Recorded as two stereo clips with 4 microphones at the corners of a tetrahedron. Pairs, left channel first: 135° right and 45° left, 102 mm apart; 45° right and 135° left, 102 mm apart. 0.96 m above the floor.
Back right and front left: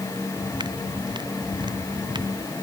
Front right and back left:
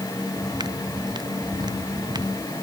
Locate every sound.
0.4 s footsteps: 90° left